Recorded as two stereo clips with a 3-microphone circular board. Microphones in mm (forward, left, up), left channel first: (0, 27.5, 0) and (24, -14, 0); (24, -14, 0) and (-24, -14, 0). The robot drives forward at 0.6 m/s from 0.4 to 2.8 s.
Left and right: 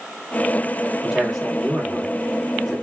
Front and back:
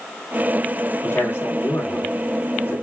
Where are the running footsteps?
I don't hear running footsteps.